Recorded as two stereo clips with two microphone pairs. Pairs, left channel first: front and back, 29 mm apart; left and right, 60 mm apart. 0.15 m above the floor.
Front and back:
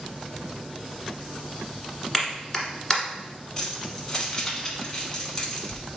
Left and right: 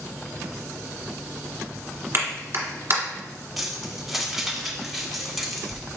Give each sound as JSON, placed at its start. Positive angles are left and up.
{"t": 2.1, "sound": "a clap", "azimuth_deg": -70, "distance_m": 1.2}
{"t": 3.6, "sound": "keys jangling", "azimuth_deg": 0, "distance_m": 0.8}